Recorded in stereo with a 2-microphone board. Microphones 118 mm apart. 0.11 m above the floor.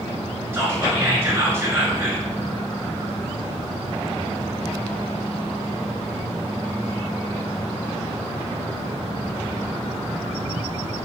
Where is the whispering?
20° right (ahead or behind), 1.1 m.